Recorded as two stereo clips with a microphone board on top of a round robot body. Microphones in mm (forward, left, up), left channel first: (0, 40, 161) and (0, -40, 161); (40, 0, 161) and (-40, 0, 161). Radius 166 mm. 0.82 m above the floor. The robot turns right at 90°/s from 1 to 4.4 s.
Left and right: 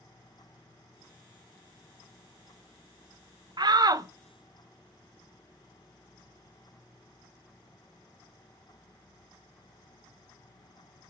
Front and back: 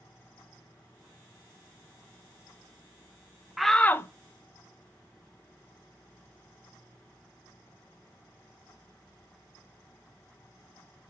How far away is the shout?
About 0.6 m.